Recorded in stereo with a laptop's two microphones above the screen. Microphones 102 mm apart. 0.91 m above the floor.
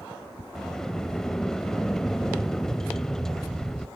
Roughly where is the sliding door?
Centre.